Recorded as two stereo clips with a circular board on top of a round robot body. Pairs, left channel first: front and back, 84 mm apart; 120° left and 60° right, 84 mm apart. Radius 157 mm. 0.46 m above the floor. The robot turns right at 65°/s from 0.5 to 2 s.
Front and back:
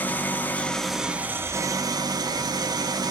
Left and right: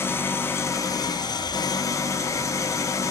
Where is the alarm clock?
I don't hear an alarm clock.